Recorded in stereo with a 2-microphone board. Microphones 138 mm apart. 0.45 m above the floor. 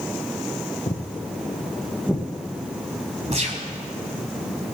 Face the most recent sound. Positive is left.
turn(degrees=-55)  # may be behind; listen again after turning